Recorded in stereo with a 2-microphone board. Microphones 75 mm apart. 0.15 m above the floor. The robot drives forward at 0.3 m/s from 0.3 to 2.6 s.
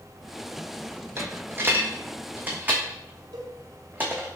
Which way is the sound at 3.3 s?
75° right (ahead or behind).